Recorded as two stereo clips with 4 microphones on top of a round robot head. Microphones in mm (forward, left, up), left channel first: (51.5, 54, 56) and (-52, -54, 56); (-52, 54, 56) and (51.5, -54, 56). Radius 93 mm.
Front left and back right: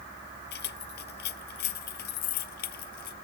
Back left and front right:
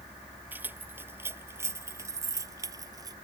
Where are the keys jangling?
30° left; by 3.1 s 20° left.